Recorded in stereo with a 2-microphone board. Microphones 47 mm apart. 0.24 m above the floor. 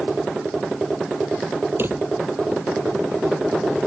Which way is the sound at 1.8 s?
50° right (ahead or behind).